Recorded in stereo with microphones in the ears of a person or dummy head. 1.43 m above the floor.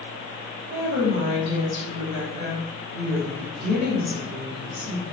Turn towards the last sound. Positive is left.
turn(degrees=-55)  # may be behind; listen again after turning